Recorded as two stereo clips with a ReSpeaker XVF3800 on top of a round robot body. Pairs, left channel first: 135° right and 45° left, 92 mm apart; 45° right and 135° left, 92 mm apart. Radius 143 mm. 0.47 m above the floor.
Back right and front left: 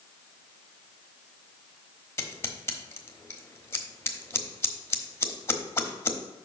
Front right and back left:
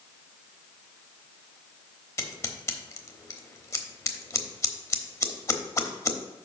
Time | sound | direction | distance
2.2 | scissors | 85° right | 1.2 m